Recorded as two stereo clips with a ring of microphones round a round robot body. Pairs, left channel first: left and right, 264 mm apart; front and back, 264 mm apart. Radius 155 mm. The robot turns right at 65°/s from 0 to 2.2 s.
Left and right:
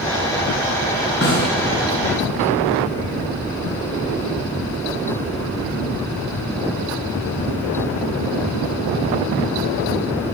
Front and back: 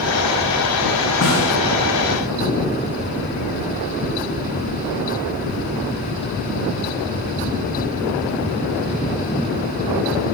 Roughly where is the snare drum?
Ahead left.